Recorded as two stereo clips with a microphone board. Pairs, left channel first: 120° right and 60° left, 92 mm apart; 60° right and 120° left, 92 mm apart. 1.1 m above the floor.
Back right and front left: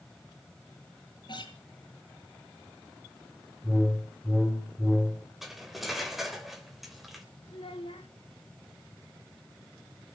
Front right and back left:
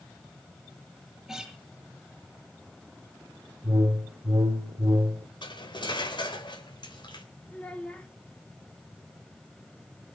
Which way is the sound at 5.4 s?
30° right.